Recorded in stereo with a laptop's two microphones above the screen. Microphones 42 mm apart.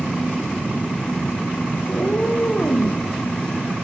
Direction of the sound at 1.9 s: 40° left (ahead or behind).